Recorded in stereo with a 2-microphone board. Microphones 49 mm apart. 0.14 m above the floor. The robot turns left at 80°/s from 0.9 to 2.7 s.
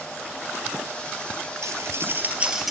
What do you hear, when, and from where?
1.6 s cutlery clinking: 65° right (ahead or behind), 1.8 m; by 2.7 s 5° right (ahead or behind), 1.8 m